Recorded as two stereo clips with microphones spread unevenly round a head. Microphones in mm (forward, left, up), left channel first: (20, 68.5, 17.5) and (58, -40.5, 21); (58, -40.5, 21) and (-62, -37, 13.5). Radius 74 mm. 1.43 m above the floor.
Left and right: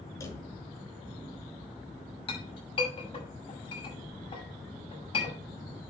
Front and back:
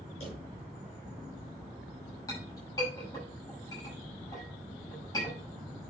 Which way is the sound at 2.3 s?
65° left.